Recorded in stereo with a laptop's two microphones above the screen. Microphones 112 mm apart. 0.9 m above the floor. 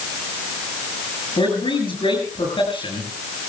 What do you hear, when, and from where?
1.4 s a man speaking: 50° left (ahead or behind), 8 m